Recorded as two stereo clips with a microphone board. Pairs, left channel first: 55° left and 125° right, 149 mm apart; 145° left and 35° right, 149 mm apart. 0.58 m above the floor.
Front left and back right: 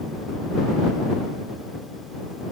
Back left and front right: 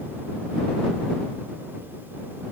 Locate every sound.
Only background noise.